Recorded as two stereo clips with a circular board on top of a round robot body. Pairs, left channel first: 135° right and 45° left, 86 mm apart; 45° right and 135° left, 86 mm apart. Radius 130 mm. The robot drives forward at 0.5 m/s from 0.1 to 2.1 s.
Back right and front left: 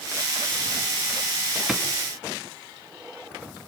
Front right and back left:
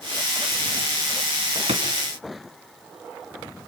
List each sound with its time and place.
1.7 s a drawer: 125° left, 3 m; by 1.9 s 130° left, 3 m